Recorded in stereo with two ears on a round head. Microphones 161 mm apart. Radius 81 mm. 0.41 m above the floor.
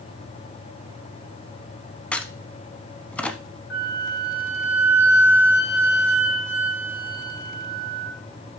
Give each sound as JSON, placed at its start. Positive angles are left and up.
{"t": 2.1, "sound": "a crack", "side_deg": 5, "distance_m": 1.0}
{"t": 3.7, "sound": "a flute", "side_deg": 60, "distance_m": 3.0}